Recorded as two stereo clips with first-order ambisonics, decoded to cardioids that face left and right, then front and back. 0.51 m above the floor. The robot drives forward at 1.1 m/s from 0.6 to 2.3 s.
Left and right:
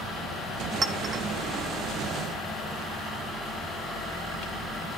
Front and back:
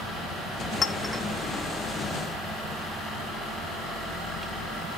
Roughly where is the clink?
Ahead right.